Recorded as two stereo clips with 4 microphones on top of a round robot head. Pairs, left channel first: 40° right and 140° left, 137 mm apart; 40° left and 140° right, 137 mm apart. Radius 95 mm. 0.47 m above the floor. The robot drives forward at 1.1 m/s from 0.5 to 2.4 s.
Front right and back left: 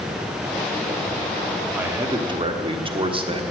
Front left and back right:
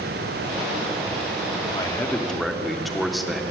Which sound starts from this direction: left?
A man speaking, at 1.7 s.